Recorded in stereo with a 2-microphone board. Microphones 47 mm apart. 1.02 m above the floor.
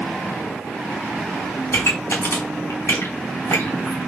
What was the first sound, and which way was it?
A pop, 70° left (ahead or behind).